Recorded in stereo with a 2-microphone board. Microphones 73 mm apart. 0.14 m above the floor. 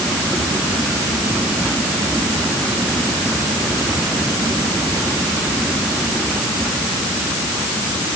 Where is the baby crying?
No baby crying in this recording.